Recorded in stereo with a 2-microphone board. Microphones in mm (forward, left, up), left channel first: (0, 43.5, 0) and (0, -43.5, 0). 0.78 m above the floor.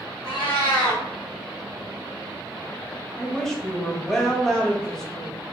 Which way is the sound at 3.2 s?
5° left (ahead or behind).